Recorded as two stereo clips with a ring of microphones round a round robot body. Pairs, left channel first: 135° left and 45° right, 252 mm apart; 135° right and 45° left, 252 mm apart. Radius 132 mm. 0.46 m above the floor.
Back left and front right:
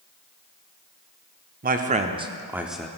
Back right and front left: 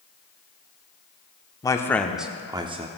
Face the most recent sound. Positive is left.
turn(degrees=55)